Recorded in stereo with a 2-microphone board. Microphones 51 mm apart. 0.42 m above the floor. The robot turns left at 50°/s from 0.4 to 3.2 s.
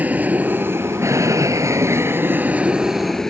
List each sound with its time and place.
0.0 s an aircraft: 30° right (ahead or behind); by 3.3 s 10° left (ahead or behind)